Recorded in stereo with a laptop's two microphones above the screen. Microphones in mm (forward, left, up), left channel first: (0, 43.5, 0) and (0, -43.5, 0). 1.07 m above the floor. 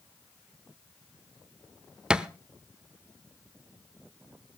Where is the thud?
10° right (ahead or behind), 0.7 m.